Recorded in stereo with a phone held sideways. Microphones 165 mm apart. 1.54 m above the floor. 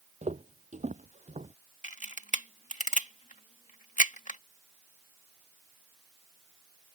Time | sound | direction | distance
0.2 | footsteps | 45° right (ahead or behind) | ?
1.8 | a camera shutter | 50° left (ahead or behind) | ?